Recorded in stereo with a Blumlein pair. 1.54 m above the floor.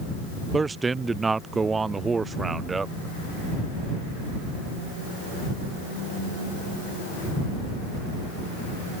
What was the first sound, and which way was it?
A man speaking, 15° right.